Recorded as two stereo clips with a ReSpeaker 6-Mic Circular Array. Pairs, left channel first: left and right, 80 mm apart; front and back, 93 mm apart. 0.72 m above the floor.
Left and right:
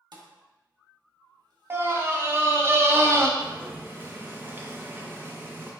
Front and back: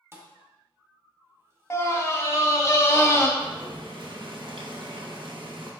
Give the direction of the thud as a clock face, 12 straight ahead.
4 o'clock.